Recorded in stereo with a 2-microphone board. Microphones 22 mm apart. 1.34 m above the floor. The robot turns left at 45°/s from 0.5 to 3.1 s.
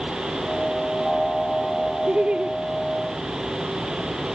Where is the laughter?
70° right (ahead or behind), 0.5 m; by 2.5 s 50° right (ahead or behind), 0.5 m.